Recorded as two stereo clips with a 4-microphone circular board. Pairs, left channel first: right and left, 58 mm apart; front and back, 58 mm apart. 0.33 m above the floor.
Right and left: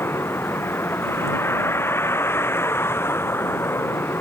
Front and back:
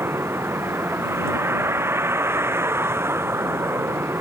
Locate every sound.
0.0 s a vehicle: 135° right